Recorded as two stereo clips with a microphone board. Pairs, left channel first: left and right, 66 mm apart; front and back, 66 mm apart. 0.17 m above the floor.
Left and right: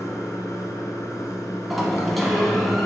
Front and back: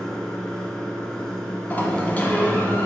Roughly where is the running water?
Left.